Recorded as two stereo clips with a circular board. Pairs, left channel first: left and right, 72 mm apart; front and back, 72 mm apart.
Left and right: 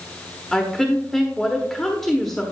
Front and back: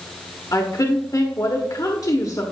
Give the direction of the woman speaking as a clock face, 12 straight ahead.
12 o'clock.